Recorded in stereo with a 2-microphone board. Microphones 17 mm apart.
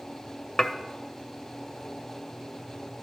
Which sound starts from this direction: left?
Dishes clattering, at 0.6 s.